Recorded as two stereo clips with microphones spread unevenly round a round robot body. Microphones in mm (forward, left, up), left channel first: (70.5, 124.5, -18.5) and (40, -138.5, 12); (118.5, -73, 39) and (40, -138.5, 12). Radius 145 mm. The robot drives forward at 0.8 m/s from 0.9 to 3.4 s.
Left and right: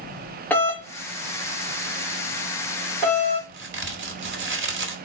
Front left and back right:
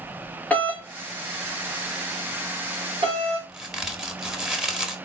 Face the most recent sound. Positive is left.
turn(degrees=-85)